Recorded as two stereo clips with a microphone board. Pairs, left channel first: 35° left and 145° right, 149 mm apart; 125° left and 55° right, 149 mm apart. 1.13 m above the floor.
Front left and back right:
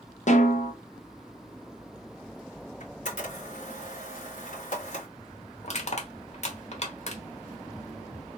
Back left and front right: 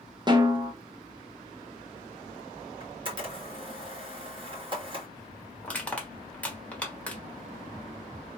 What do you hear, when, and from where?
0.3 s a snare drum: 5° left, 0.9 m
2.8 s a camera shutter: straight ahead, 1.9 m
5.6 s crushing: 45° left, 1.1 m